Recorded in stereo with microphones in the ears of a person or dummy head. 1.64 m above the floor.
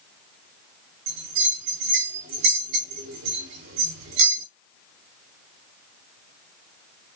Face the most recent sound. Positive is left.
turn(degrees=-60)  # may be behind; listen again after turning